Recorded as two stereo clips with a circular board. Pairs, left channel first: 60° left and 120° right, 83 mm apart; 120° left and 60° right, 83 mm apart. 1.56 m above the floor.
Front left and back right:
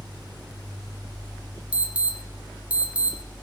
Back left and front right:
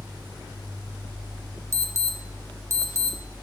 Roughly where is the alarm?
Ahead right.